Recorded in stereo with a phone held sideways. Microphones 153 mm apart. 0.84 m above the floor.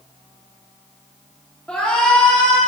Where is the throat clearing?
I don't hear throat clearing.